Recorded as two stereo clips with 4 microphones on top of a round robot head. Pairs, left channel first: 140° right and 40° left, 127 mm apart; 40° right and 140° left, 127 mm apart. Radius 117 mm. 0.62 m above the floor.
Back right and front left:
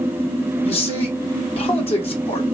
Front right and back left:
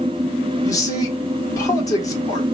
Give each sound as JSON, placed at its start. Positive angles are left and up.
{"t": 0.6, "sound": "a man speaking", "azimuth_deg": -100, "distance_m": 2.5}